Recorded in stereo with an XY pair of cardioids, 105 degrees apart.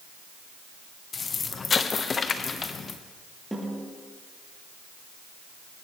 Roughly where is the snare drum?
Ahead.